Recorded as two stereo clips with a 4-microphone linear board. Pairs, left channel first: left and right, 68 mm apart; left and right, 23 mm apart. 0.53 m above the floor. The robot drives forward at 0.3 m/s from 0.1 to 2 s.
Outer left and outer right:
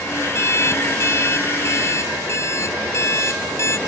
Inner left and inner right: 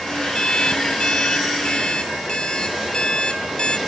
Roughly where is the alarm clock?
Left.